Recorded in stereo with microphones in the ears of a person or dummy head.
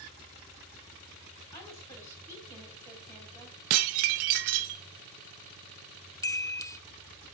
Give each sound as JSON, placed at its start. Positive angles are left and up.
{"t": 1.5, "sound": "a woman speaking", "side_deg": 15, "distance_m": 9.0}
{"t": 3.7, "sound": "dishes clattering", "side_deg": -50, "distance_m": 0.8}
{"t": 6.2, "sound": "a chime", "side_deg": 20, "distance_m": 0.7}